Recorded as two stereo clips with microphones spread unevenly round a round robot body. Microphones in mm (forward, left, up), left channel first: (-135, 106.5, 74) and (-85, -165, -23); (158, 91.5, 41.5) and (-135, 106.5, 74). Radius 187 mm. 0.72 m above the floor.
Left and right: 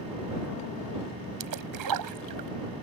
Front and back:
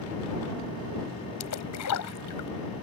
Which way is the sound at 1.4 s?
50° right.